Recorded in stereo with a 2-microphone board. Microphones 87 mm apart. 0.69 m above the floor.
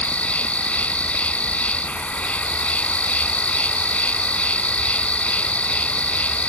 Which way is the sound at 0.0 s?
15° left (ahead or behind).